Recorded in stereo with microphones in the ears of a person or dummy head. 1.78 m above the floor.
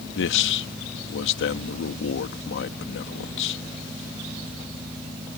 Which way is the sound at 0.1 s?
70° left (ahead or behind).